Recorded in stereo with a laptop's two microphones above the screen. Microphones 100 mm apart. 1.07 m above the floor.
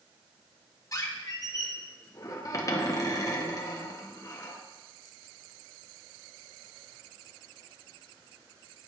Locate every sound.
0.9 s a squeak: 35° left (ahead or behind), 0.8 m